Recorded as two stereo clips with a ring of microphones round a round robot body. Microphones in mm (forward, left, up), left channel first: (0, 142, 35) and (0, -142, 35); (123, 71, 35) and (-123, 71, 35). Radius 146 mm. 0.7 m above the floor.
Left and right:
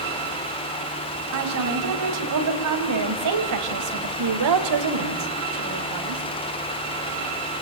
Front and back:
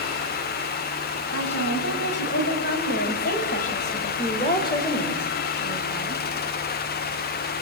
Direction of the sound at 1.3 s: 55° right.